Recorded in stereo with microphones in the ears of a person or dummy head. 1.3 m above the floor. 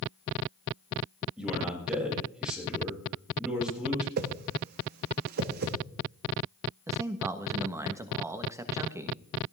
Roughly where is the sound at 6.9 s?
Centre.